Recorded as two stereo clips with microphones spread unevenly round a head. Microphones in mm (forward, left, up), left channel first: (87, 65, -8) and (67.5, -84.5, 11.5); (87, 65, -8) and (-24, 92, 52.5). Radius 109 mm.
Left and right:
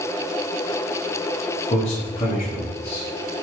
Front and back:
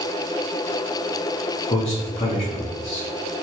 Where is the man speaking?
35° left, 0.9 m.